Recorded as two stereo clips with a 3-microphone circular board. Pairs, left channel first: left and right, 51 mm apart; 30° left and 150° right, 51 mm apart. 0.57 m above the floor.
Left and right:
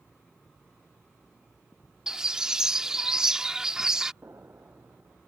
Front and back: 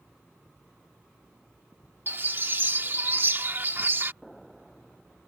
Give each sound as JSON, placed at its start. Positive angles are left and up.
{"t": 2.1, "sound": "a bird", "azimuth_deg": -160}
{"t": 4.2, "sound": "an explosion", "azimuth_deg": -55}